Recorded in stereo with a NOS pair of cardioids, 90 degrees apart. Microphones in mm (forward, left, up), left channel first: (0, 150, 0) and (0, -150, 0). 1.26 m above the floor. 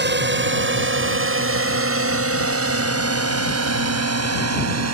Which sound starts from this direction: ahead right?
A drone, at 0.0 s.